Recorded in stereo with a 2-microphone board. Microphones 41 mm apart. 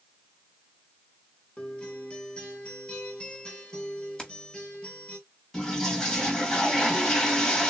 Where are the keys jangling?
10° left (ahead or behind), 1.7 m.